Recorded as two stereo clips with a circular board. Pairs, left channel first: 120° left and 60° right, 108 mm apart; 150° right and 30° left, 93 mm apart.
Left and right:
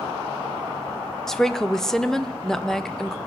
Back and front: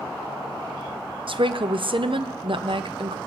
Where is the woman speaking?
35° left, 0.6 m.